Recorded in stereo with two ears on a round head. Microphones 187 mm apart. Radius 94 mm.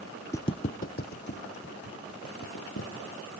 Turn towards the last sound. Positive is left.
turn(degrees=65)  # may be behind; listen again after turning